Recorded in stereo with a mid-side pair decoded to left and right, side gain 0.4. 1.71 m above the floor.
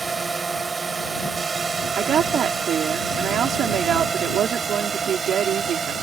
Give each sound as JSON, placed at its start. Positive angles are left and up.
{"t": 0.0, "sound": "a drone", "azimuth_deg": -35}
{"t": 2.0, "sound": "a woman speaking", "azimuth_deg": -70}